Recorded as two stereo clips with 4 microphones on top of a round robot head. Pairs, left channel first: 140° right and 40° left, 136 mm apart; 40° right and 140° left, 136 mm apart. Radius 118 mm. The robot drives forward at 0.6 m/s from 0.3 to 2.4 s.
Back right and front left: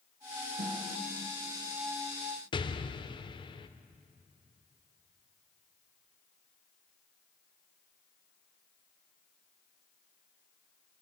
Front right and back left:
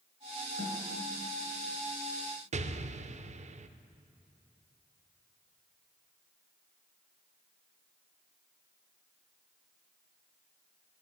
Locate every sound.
0.6 s a snare drum: 25° left, 5.5 m
2.5 s an explosion: 170° left, 0.7 m